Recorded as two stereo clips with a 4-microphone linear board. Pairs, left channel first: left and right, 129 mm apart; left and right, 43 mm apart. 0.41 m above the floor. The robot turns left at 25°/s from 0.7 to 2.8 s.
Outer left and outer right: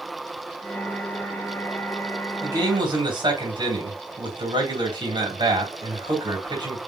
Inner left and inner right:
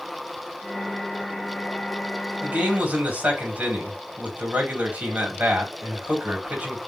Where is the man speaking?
30° right (ahead or behind), 2.5 m; by 6.8 s 35° right (ahead or behind), 2.5 m.